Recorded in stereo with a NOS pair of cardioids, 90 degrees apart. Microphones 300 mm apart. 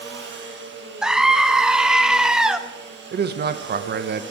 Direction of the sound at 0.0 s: 40° right.